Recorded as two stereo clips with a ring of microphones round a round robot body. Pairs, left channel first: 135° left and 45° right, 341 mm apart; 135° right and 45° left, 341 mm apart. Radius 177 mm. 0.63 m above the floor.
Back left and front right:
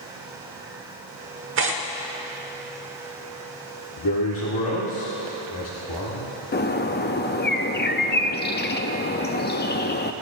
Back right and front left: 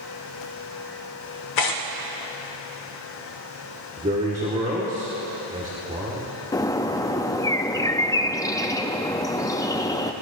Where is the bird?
155° left, 0.5 m.